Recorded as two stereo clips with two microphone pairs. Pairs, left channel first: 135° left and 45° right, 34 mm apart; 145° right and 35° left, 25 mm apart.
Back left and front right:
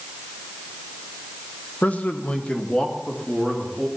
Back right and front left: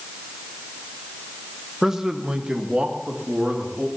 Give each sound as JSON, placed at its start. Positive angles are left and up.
{"t": 1.8, "sound": "a man speaking", "azimuth_deg": 110, "distance_m": 1.0}